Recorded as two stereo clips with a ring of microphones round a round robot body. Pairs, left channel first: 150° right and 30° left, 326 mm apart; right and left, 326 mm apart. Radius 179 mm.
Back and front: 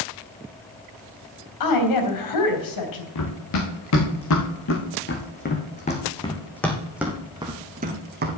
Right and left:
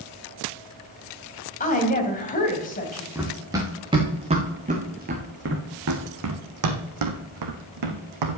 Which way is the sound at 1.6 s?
155° right.